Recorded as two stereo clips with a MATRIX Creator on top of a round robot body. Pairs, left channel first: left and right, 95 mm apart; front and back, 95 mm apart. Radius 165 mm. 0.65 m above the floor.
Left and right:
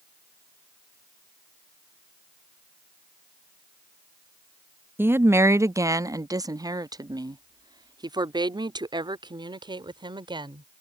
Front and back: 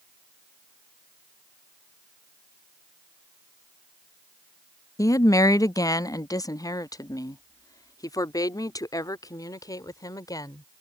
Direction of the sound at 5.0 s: 35° right.